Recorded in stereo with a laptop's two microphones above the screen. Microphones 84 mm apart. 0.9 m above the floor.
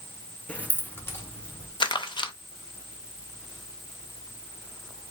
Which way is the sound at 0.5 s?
15° left (ahead or behind).